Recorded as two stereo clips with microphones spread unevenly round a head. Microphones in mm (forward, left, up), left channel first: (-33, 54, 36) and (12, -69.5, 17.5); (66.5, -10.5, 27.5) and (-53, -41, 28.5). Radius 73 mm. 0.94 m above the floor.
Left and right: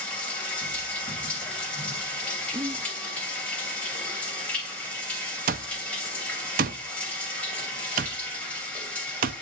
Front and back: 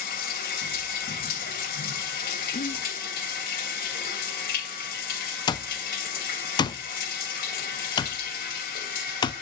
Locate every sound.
0.0 s running water: 30° left, 2.5 m
2.5 s whispering: 10° right, 0.9 m
5.5 s an alarm clock: 45° right, 0.7 m